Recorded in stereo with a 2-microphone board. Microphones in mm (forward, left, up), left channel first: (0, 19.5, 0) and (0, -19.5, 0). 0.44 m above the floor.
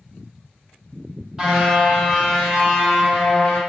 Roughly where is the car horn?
Centre.